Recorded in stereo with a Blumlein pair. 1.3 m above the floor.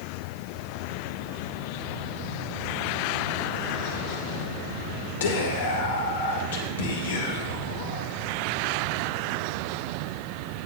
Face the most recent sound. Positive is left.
turn(degrees=60)